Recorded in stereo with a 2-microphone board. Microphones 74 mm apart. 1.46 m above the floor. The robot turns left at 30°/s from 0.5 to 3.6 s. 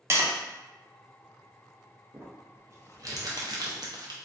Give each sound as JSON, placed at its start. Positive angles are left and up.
{"t": 0.1, "sound": "tapping", "side_deg": -35, "distance_m": 0.5}
{"t": 2.1, "sound": "crumpling", "side_deg": -25, "distance_m": 0.5}